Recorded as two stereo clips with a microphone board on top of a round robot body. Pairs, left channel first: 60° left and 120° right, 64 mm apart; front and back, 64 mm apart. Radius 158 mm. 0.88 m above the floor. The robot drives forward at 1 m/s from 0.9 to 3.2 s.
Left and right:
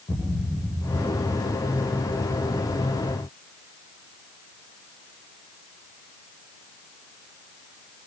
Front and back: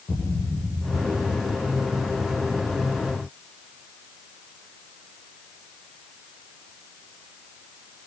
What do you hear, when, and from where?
0.1 s a thud: 25° left, 8 m